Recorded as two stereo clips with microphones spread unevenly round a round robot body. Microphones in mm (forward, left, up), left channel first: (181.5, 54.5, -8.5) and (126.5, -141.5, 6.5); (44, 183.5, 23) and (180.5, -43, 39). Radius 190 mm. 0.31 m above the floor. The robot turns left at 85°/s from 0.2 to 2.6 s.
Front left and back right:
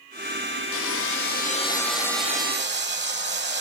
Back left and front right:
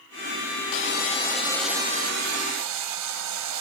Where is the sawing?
85° left, 2.5 m; by 3.6 s 75° right, 2.5 m.